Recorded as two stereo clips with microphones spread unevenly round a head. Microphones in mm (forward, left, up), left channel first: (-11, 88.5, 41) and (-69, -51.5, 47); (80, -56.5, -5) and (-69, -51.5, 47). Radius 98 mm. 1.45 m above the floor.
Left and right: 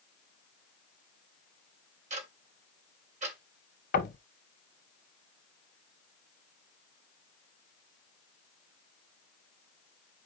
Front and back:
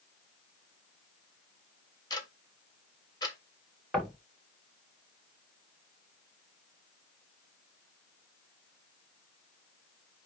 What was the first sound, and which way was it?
Ticking, 65° right.